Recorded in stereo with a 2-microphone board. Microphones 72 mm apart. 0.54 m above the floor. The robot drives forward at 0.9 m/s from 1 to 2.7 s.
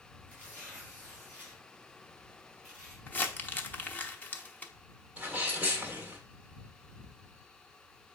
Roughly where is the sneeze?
Right.